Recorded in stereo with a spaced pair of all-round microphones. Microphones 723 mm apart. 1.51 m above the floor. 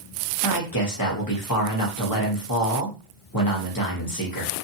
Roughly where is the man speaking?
Left.